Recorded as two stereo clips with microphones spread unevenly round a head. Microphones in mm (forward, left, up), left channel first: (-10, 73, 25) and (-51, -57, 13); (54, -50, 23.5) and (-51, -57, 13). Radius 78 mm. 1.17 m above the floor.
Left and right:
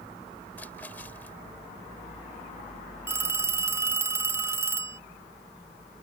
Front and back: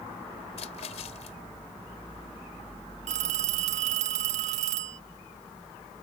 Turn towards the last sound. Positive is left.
turn(degrees=180)